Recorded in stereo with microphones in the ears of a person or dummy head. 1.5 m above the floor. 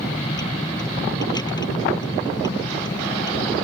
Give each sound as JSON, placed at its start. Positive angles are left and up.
{"t": 0.0, "sound": "a vehicle", "side_deg": 20}